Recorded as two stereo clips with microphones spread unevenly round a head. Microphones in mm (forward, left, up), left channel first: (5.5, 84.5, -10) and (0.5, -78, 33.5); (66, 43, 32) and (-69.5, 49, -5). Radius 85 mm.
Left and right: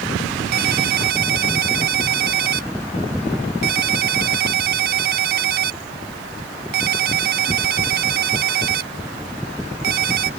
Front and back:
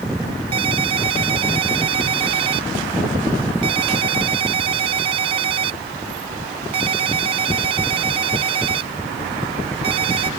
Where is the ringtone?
120° right.